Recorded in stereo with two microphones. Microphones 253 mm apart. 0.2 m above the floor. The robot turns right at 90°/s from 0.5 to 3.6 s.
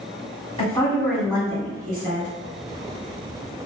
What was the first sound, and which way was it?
A woman speaking, 140° left.